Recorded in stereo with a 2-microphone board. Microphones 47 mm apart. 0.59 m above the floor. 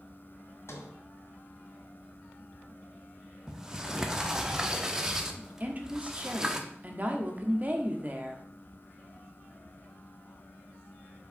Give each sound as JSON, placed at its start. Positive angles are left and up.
{"t": 0.7, "sound": "a sliding door", "side_deg": 65, "distance_m": 1.4}
{"t": 3.5, "sound": "a sliding door", "side_deg": -10, "distance_m": 0.8}
{"t": 5.6, "sound": "a woman speaking", "side_deg": -35, "distance_m": 1.1}